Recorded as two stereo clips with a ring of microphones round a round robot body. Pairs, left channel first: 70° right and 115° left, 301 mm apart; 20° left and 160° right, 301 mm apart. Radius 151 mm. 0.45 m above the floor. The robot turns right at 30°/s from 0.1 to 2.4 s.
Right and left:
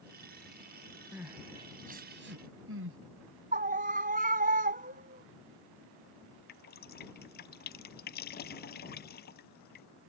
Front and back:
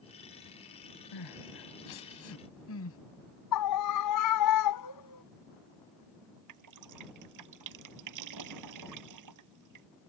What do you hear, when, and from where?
1.1 s crying: 25° left; by 3.0 s 65° left
3.5 s a scream: 50° left
6.5 s dripping: 125° right